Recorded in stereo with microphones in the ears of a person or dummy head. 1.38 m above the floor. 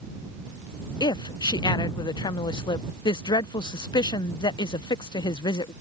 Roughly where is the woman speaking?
Left.